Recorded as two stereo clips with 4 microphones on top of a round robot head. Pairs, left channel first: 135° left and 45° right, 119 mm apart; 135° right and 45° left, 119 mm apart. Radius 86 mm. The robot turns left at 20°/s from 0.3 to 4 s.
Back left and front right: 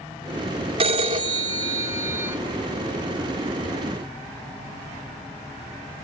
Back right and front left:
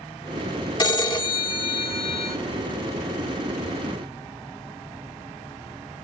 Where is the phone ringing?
85° right, 1.9 m; by 2.4 s 115° right, 1.9 m.